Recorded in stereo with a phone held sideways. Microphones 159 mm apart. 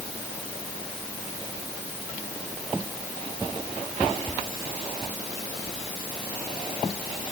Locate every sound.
Only background noise.